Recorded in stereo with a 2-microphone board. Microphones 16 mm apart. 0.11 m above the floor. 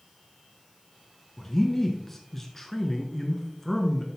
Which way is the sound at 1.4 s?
15° left (ahead or behind).